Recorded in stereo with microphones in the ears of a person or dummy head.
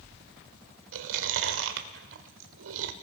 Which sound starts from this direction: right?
Chewing, at 0.9 s.